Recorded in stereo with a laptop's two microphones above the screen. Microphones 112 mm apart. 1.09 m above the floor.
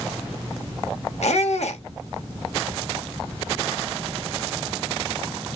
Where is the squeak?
80° left, 1.0 m.